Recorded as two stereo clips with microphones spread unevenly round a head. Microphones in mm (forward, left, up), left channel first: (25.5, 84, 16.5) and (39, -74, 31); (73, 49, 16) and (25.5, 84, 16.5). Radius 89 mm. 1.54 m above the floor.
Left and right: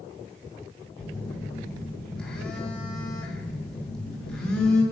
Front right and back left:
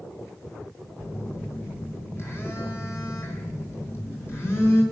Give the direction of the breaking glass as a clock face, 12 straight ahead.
I don't hear breaking glass.